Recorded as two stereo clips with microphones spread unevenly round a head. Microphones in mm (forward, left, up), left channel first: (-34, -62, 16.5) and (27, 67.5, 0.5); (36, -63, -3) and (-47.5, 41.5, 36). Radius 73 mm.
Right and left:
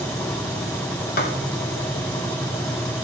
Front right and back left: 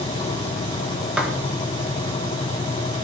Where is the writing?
145° right, 1.5 m.